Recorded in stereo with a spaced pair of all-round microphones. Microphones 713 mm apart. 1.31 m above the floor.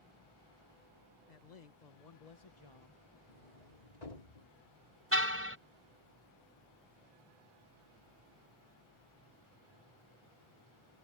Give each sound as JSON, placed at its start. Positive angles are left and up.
{"t": 1.3, "sound": "a man speaking", "side_deg": 75}
{"t": 3.3, "sound": "a sliding door", "side_deg": 70}
{"t": 5.1, "sound": "a car horn", "side_deg": -20}